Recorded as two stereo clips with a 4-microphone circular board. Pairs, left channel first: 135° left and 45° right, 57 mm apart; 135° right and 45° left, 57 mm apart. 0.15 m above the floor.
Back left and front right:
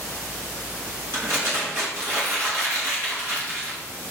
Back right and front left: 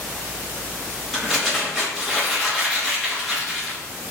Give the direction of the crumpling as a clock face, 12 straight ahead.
2 o'clock.